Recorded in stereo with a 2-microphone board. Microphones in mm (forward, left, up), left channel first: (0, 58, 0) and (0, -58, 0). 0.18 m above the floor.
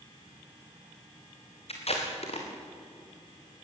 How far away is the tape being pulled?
About 5 m.